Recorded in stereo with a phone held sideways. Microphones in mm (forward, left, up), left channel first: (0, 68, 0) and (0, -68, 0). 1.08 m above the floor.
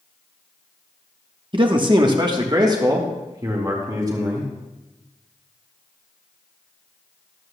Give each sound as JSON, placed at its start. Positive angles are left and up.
{"t": 1.5, "sound": "a man speaking", "side_deg": -40, "distance_m": 1.1}